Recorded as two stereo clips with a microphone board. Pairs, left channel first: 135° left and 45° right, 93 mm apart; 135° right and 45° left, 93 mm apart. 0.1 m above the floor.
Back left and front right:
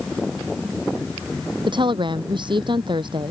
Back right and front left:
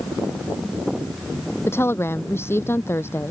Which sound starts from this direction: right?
A woman speaking, at 1.7 s.